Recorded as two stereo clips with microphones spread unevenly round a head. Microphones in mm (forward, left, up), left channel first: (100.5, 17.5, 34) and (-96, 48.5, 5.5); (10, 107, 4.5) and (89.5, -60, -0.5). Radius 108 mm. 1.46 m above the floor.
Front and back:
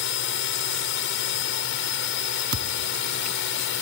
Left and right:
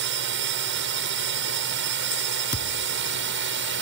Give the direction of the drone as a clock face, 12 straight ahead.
2 o'clock.